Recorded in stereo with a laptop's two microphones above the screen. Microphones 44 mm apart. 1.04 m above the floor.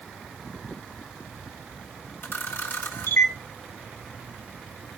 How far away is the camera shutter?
About 1.3 m.